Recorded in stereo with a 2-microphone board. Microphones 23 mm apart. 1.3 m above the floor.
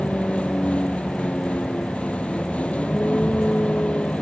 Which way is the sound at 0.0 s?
70° left (ahead or behind).